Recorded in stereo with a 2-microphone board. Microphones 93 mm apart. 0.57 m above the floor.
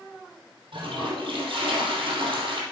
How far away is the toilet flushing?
About 3 m.